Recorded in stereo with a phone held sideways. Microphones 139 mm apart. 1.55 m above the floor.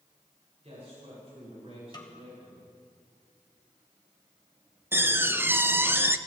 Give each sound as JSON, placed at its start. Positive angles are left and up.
{"t": 0.6, "sound": "a man speaking", "side_deg": -50, "distance_m": 7.0}
{"t": 1.9, "sound": "a snare drum", "side_deg": 35, "distance_m": 2.0}
{"t": 4.9, "sound": "a door slam", "side_deg": -15, "distance_m": 0.5}